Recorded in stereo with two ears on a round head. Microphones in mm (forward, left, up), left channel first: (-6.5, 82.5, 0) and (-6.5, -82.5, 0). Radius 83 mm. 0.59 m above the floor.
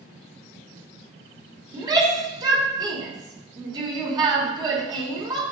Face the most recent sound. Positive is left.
turn(degrees=-25)  # may be behind; listen again after turning